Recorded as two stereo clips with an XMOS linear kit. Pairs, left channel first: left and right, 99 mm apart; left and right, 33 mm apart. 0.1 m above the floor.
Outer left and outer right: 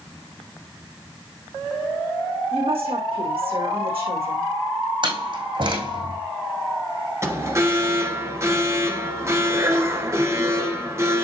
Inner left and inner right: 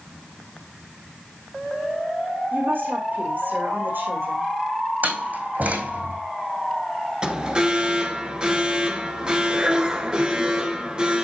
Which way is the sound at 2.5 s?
80° right.